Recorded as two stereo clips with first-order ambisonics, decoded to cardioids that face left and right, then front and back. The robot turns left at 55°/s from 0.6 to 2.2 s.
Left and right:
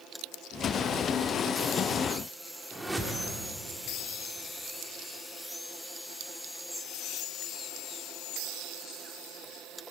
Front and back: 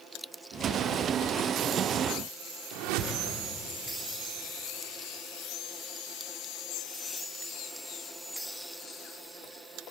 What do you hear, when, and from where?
2.7 s a whoosh: 175° right, 2.5 m